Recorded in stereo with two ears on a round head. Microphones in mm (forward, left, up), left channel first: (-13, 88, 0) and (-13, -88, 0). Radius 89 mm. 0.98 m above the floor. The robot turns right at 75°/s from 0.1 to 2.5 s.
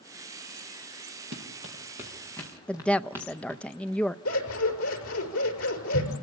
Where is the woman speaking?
5° left (ahead or behind), 0.5 m.